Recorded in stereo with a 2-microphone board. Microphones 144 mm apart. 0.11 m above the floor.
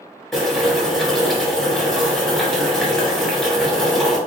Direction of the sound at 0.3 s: Centre (ahead or behind).